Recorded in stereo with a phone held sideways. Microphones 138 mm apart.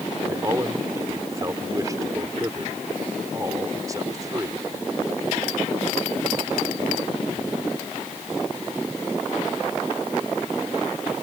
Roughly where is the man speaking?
Right.